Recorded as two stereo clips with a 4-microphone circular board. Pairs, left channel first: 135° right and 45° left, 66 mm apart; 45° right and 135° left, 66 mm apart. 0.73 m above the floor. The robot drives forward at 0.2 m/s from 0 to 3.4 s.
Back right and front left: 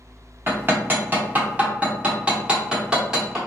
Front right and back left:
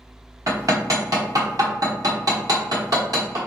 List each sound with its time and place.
0.5 s hammering: 100° left, 1.1 m; by 3.4 s 125° left, 1.3 m